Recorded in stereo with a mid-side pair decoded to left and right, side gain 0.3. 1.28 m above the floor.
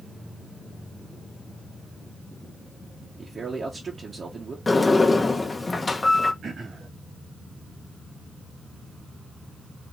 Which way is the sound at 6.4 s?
65° right.